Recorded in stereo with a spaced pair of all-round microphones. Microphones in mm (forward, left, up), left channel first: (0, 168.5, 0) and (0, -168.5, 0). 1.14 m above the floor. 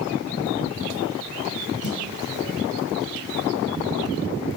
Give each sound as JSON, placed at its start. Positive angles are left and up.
{"t": 1.8, "sound": "a snare drum", "side_deg": 60, "distance_m": 5.5}